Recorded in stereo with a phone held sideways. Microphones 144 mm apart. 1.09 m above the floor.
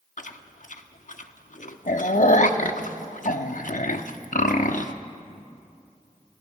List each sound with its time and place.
0.2 s chewing: 65° left (ahead or behind), 0.9 m